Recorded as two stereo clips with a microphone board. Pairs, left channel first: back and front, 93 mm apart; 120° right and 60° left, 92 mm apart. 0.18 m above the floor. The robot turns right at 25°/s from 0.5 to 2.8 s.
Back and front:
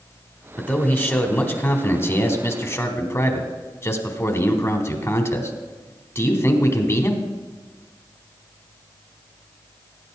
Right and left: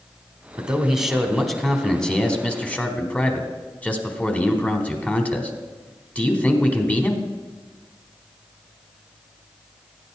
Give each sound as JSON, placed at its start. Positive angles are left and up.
{"t": 0.6, "sound": "a man speaking", "azimuth_deg": 130, "distance_m": 1.1}